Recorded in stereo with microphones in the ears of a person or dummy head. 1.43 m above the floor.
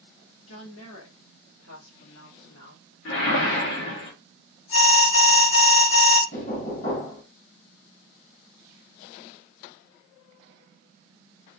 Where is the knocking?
50° left (ahead or behind), 1.6 m.